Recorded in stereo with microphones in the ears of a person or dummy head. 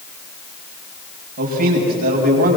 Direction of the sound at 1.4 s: 45° right (ahead or behind).